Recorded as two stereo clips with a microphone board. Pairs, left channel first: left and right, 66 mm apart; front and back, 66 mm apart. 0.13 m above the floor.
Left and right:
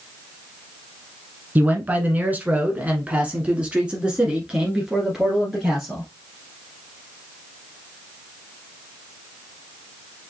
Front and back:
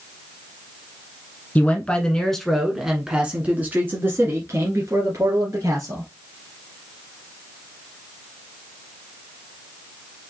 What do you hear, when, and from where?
1.6 s a man speaking: 50° right, 1.4 m; by 6.1 s 175° right, 2 m